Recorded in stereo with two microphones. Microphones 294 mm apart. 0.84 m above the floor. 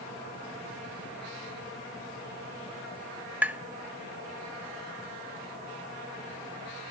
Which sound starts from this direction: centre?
Tapping, at 3.4 s.